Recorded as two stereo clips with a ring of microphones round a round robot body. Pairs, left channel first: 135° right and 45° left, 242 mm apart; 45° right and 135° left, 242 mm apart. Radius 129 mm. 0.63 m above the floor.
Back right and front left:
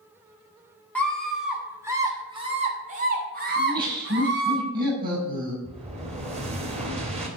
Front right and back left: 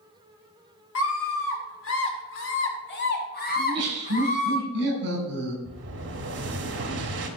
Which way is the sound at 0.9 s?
50° right.